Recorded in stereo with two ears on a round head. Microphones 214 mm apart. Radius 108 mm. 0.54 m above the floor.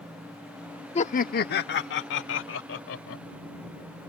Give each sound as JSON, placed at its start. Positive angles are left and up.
{"t": 0.9, "sound": "laughter", "side_deg": 25}